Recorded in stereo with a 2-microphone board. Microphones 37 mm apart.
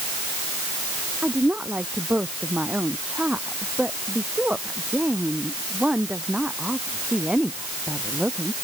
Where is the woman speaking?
40° right (ahead or behind); by 8.5 s 20° right (ahead or behind).